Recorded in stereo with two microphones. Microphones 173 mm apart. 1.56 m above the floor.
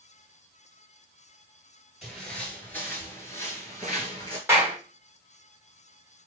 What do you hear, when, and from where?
2.0 s footsteps: 5° left (ahead or behind), 1.7 m; by 4.4 s 25° left (ahead or behind), 1.7 m
4.5 s a clap: 15° right (ahead or behind), 1.5 m